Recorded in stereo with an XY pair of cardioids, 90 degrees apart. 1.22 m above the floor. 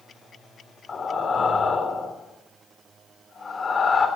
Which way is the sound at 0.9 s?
40° left.